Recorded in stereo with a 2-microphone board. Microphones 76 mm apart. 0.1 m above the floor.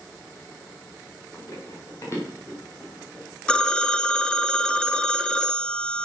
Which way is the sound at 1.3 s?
40° left (ahead or behind).